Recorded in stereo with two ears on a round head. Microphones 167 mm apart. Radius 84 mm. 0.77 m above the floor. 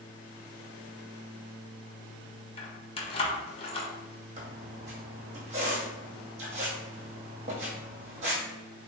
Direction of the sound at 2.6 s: 30° left (ahead or behind).